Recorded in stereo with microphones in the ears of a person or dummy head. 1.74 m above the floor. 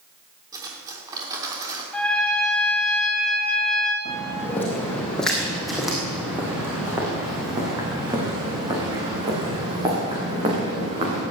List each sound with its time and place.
0.5 s cutlery clinking: 20° right (ahead or behind), 3 m
1.9 s a trumpet: 5° left (ahead or behind), 2.0 m
4.0 s footsteps: 20° left (ahead or behind), 3.5 m; by 11.2 s 40° right (ahead or behind), 8 m